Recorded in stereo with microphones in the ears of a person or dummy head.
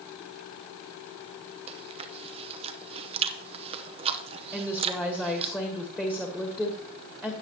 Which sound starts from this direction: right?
Chewing, at 1.7 s.